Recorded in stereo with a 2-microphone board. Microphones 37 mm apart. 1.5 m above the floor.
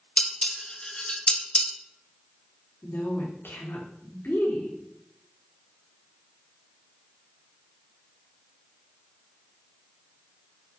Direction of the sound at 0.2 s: 25° left (ahead or behind).